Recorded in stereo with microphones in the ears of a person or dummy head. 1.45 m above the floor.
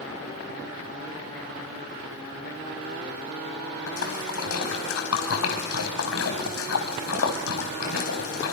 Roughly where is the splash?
Left.